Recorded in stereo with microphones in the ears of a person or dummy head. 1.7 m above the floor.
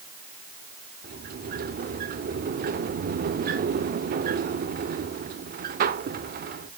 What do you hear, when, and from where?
1.0 s a sliding door: 40° right (ahead or behind), 0.5 m